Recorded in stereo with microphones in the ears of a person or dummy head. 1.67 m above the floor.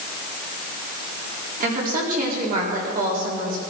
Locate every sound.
1.6 s a woman speaking: 55° right (ahead or behind), 4.5 m